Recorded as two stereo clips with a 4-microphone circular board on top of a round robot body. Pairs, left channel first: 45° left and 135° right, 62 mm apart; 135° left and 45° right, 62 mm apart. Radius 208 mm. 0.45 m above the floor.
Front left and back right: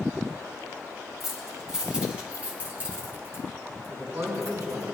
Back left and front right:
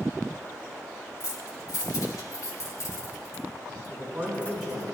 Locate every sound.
1.2 s keys jangling: 140° left, 2.5 m; by 4.9 s 160° right, 2.5 m
3.9 s a man speaking: 140° right, 4 m